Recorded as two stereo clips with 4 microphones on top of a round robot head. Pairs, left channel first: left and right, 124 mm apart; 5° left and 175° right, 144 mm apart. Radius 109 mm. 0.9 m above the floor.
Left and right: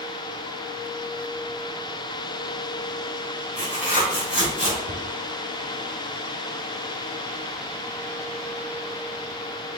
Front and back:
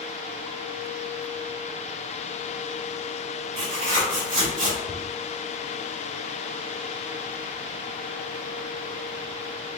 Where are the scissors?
No scissors in this recording.